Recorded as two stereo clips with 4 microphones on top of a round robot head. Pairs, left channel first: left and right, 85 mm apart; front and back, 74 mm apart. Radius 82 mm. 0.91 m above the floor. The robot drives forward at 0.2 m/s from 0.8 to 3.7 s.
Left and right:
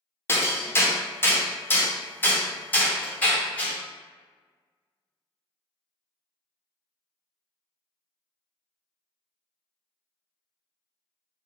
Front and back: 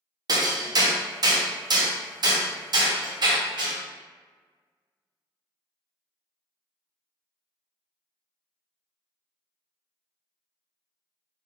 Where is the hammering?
150° left, 0.9 m; by 3.8 s 165° left, 1.4 m.